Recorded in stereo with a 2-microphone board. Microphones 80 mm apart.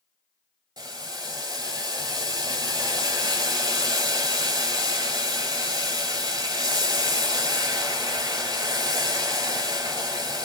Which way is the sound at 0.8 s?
55° right (ahead or behind).